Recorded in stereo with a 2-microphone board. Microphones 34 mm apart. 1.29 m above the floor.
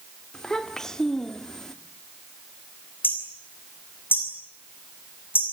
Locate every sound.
0.3 s a child speaking: 15° left (ahead or behind), 2.5 m
3.0 s hammering: 75° left (ahead or behind), 6 m